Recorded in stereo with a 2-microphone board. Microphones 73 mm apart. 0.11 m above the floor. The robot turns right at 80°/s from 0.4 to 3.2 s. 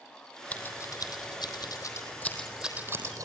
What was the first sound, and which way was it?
Scissors, 20° left (ahead or behind).